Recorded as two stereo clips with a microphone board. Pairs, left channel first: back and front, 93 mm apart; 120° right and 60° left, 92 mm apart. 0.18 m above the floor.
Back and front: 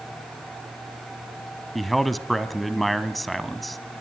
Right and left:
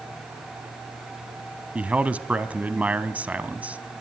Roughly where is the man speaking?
Left.